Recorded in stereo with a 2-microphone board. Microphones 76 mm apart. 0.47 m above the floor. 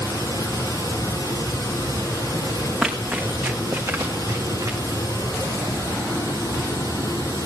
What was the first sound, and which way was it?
Running water, 65° left (ahead or behind).